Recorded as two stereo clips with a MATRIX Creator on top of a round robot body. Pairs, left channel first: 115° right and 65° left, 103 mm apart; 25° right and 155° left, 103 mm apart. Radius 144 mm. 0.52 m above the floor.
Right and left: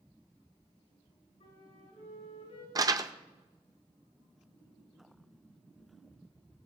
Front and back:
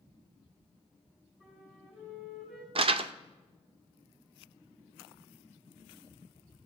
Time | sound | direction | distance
1.4 | a flute | 125° right | 5 m
2.8 | crumpling | 125° left | 0.5 m